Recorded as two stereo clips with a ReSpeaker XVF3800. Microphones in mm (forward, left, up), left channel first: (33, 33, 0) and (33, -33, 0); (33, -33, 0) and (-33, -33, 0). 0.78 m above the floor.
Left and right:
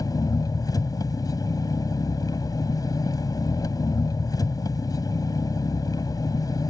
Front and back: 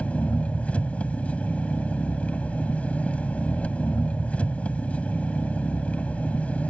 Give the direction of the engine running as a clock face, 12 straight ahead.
10 o'clock.